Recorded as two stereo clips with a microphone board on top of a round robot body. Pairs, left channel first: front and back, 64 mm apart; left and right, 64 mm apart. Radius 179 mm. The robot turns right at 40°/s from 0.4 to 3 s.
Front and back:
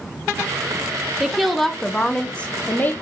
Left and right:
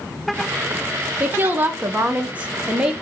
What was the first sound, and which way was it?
A woman speaking, 100° right.